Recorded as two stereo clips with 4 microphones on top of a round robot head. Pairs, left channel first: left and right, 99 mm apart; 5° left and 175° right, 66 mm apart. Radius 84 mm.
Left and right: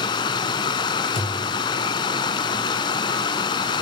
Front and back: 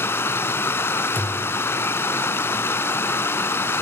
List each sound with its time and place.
0.0 s running water: 50° left, 0.8 m
1.1 s a thud: 65° left, 5 m